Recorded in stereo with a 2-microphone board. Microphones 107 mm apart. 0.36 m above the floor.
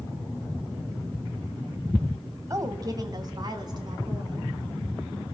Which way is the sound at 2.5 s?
30° right (ahead or behind).